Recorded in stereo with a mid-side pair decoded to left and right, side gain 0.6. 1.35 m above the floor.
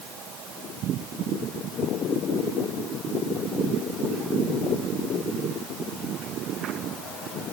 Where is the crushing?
No crushing in this recording.